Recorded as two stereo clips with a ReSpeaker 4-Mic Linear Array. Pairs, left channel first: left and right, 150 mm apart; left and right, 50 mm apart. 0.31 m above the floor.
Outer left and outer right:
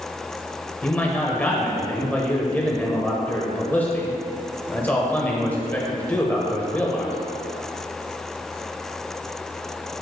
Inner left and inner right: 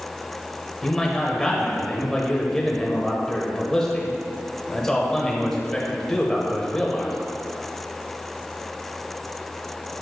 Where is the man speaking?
10° left (ahead or behind), 1.4 m.